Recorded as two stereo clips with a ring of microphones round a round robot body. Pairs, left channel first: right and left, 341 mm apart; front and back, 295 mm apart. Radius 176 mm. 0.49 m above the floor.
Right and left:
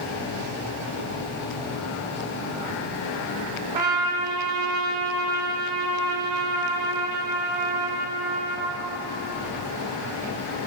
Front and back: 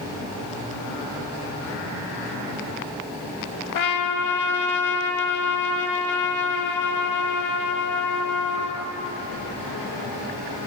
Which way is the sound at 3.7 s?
25° left.